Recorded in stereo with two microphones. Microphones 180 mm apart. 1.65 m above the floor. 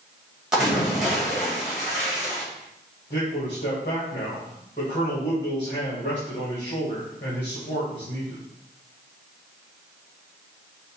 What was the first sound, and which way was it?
A splash, centre (ahead or behind).